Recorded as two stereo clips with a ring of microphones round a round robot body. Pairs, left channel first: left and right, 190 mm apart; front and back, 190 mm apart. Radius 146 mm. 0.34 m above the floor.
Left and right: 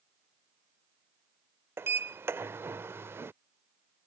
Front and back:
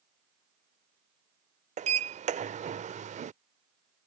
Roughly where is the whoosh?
No whoosh in this recording.